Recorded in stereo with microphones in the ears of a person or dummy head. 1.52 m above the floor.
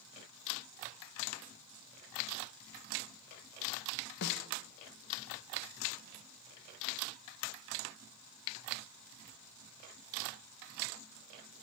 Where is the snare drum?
60° left (ahead or behind), 0.8 m.